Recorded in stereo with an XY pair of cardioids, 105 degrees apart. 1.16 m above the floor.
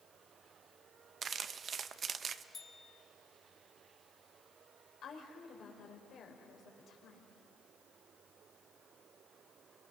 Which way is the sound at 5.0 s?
60° left.